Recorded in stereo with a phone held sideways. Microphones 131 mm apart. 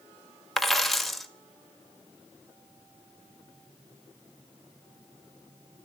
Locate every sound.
0.6 s a dropped coin: centre (ahead or behind), 1.3 m